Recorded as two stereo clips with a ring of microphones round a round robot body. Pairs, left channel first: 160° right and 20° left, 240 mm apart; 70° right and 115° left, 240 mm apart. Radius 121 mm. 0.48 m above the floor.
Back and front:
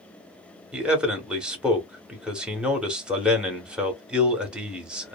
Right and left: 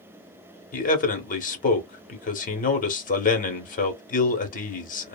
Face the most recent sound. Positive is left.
turn(degrees=-60)